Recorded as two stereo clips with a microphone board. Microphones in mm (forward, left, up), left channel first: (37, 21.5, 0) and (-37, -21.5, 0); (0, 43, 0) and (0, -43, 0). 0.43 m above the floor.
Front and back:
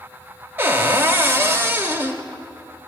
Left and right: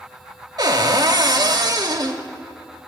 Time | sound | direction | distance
0.6 | a cupboard door | 90° right | 0.6 m